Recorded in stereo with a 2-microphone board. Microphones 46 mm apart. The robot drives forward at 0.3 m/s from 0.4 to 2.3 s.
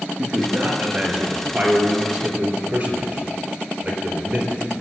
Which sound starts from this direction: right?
A man speaking, at 0.2 s.